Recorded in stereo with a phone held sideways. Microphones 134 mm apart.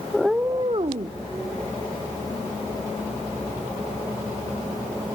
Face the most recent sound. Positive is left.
turn(degrees=-60)  # may be behind; listen again after turning